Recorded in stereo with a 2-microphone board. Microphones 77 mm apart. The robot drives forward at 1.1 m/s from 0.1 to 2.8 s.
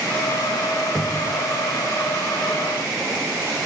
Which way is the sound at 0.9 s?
15° left (ahead or behind).